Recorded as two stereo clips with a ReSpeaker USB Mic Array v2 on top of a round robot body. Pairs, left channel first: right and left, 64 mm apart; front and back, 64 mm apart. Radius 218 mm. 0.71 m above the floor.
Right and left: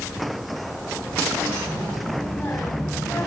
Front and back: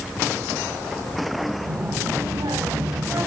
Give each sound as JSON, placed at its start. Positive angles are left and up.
{"t": 1.6, "sound": "a child speaking", "azimuth_deg": -165, "distance_m": 4.5}